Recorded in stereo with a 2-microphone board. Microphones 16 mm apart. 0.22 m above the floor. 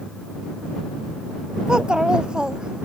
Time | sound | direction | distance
1.7 | a child speaking | 55° right (ahead or behind) | ?